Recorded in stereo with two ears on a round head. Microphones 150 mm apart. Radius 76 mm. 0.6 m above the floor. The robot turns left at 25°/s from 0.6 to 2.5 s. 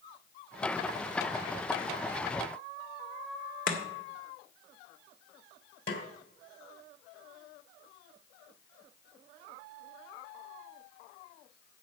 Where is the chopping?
55° left (ahead or behind), 2 m.